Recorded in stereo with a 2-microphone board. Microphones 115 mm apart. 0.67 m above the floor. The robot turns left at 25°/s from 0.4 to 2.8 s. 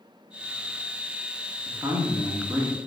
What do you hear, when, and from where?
1.6 s a man speaking: 30° right (ahead or behind), 1.2 m; by 2.8 s 10° right (ahead or behind), 1.2 m